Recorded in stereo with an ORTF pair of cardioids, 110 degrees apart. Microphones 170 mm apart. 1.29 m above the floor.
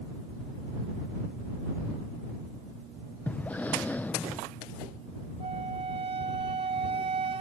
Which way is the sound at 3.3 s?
10° left.